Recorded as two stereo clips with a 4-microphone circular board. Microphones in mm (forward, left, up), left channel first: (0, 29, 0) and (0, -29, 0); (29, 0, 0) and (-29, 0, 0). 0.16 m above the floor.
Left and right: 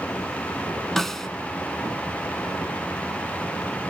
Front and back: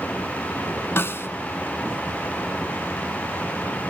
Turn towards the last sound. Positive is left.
turn(degrees=5)